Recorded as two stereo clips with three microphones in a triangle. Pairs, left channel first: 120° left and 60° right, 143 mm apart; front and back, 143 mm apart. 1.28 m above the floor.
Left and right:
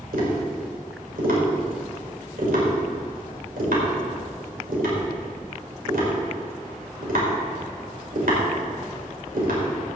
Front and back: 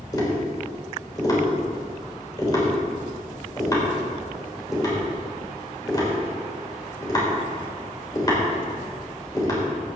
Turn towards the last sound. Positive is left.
turn(degrees=-65)